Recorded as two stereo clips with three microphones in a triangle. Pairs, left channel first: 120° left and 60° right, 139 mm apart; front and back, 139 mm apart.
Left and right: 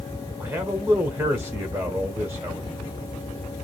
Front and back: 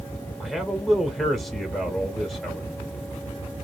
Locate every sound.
0.4 s a man speaking: 85° right, 1.3 m